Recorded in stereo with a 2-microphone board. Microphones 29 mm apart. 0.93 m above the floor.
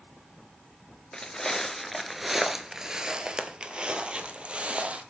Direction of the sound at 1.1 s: 20° left (ahead or behind).